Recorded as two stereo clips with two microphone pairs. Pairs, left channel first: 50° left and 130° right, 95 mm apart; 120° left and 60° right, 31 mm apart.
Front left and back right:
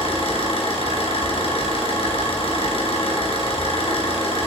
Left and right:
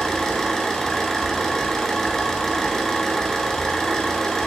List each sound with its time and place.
0.0 s an engine running: 45° left, 2.5 m